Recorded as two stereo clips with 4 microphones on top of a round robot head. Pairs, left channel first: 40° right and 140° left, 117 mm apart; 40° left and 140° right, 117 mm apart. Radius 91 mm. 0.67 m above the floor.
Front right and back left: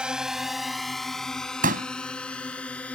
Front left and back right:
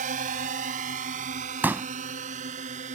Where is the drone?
135° right; by 3.0 s 120° right.